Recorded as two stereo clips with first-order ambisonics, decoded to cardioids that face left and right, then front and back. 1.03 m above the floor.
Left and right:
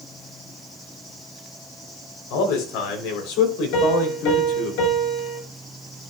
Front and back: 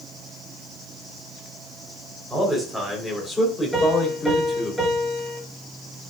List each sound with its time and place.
2.3 s a man speaking: 95° left, 3.5 m; by 4.7 s 70° left, 3.5 m
3.7 s a piano: 95° left, 6.5 m